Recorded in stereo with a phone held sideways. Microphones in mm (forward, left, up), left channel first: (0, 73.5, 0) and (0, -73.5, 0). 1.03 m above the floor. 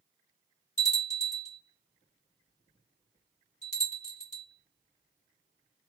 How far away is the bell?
About 2.5 m.